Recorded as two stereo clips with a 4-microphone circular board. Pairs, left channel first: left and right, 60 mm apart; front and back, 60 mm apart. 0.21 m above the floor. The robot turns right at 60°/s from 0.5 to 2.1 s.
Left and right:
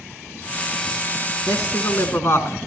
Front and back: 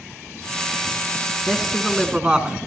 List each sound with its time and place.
1.5 s a man speaking: 70° left, 2 m; by 2.6 s 110° left, 2 m